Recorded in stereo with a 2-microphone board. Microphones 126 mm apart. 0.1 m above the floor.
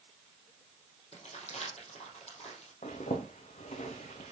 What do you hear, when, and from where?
1.1 s crumpling: 65° left (ahead or behind), 4 m
2.8 s a zipper: 75° left (ahead or behind), 2 m